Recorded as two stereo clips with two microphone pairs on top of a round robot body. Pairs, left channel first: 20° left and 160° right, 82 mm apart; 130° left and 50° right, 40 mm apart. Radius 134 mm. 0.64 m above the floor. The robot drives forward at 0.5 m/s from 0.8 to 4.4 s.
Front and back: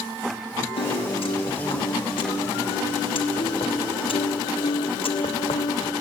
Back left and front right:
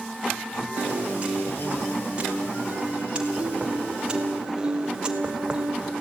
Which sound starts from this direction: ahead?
A piano, at 0.8 s.